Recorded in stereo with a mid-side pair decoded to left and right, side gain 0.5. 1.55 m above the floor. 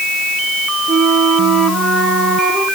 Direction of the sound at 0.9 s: 60° right.